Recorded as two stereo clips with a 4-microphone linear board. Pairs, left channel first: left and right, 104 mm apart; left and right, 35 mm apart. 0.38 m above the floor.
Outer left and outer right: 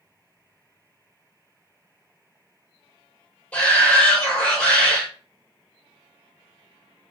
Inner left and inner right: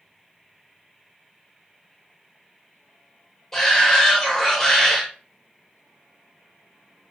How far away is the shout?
About 1.1 m.